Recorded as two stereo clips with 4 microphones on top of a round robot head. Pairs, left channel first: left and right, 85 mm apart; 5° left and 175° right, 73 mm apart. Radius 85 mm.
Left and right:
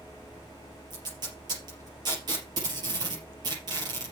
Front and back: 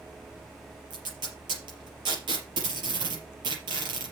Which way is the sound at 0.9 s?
140° right.